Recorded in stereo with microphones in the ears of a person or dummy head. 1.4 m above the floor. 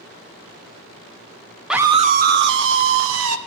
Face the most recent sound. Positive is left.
turn(degrees=-75)  # may be behind; listen again after turning